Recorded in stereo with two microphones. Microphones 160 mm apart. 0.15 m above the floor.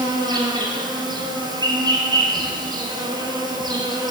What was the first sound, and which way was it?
An insect, 25° right (ahead or behind).